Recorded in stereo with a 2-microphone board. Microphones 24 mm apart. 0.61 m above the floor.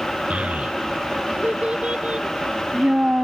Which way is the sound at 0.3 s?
75° right (ahead or behind).